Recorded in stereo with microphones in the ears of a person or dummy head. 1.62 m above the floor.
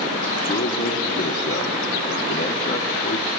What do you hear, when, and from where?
0.5 s a man speaking: 30° left (ahead or behind), 1.2 m